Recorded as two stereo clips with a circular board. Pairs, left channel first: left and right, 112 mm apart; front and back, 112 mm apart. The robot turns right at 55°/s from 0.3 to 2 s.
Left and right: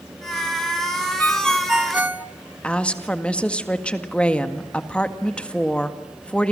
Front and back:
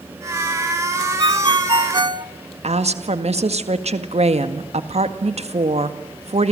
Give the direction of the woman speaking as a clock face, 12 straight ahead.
6 o'clock.